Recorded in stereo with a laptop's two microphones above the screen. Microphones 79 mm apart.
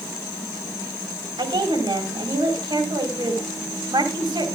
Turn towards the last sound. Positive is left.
turn(degrees=-80)